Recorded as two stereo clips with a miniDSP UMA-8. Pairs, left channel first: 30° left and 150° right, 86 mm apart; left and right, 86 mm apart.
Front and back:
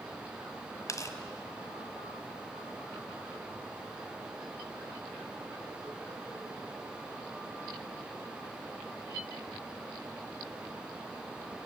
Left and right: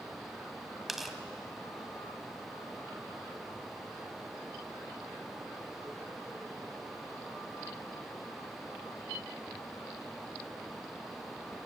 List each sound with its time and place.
0.9 s tearing paper: 5° right, 1.6 m